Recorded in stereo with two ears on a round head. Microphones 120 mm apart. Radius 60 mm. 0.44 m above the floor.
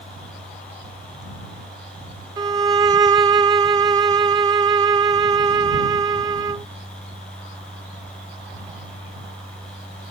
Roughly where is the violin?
Right.